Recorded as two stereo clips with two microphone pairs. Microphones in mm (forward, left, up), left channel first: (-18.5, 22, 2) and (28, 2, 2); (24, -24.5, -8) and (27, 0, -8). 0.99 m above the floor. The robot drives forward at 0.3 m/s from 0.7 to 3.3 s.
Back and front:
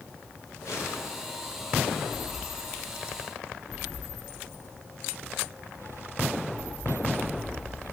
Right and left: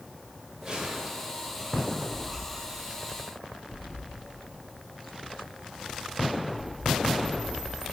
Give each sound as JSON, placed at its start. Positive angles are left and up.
{"t": 0.6, "sound": "a gunshot", "azimuth_deg": 140, "distance_m": 4.0}